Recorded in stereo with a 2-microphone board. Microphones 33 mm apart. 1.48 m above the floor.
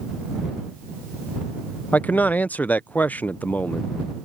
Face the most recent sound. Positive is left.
turn(degrees=55)  # may be behind; listen again after turning